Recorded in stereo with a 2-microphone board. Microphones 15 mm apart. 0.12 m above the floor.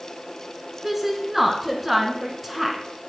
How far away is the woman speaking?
About 1.1 m.